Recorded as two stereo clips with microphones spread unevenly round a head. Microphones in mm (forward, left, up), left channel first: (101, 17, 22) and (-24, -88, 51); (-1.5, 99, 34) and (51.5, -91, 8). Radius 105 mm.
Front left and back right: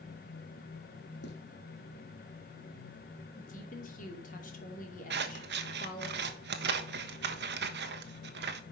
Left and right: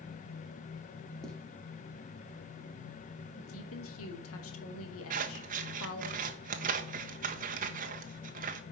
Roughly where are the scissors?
Behind right.